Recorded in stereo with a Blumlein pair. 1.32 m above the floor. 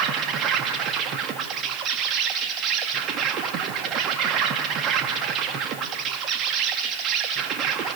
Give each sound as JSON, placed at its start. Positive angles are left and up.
{"t": 0.0, "sound": "an insect", "azimuth_deg": -30, "distance_m": 1.7}